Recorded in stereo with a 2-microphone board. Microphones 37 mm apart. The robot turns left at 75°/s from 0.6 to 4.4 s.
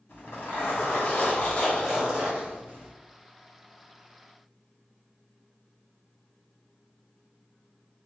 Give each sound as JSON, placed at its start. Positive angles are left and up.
{"t": 0.1, "sound": "a zipper", "azimuth_deg": 100, "distance_m": 2.0}